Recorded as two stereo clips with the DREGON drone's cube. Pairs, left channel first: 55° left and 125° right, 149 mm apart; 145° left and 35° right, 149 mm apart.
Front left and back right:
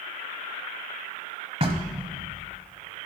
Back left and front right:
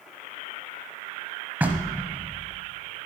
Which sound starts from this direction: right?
Knocking, at 1.6 s.